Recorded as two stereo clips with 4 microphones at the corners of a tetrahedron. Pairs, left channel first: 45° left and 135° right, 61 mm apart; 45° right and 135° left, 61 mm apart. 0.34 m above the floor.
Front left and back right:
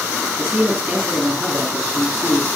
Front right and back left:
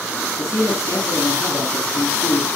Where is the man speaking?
85° right, 3.5 m.